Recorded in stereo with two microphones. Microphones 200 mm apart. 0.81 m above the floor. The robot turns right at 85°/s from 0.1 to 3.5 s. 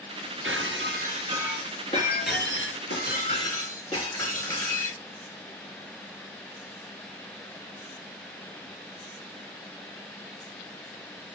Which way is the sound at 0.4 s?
95° right.